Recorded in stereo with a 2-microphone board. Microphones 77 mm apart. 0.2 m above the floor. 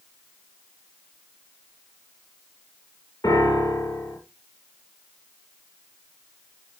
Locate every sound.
3.2 s a piano: 50° left (ahead or behind), 4 m